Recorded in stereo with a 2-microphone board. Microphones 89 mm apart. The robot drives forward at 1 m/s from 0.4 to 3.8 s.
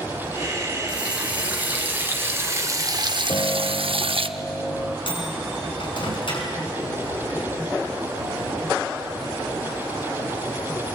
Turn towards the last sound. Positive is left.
turn(degrees=60)  # may be behind; listen again after turning